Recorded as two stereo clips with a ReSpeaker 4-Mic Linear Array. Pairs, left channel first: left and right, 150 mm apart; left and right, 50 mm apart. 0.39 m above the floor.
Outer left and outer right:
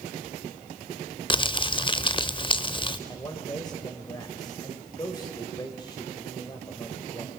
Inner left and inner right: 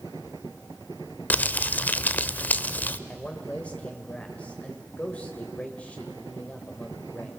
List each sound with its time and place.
1.3 s crumpling: 35° left (ahead or behind), 0.6 m
3.1 s a man speaking: 30° left (ahead or behind), 1.6 m